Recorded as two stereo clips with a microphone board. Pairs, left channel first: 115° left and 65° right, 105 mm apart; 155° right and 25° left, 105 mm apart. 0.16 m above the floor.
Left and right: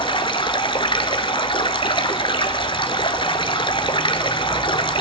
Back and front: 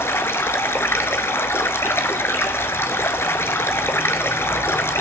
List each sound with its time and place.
0.0 s running water: 140° left, 0.9 m